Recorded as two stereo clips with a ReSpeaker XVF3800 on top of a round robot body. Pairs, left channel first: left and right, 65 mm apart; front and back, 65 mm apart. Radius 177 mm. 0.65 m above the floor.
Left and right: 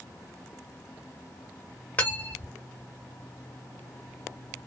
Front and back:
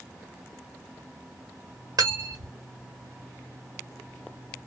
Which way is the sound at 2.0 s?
155° left.